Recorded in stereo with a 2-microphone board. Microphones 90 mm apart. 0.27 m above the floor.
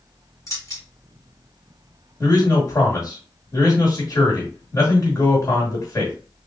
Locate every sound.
0.5 s keys jangling: 40° left (ahead or behind), 2.5 m
2.2 s a man speaking: 40° left (ahead or behind), 1.8 m